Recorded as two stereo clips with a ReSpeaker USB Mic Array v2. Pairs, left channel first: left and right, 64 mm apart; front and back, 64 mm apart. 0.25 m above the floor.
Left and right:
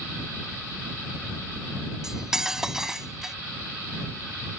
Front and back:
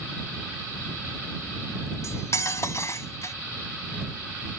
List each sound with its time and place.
2.0 s cutlery clinking: 10° right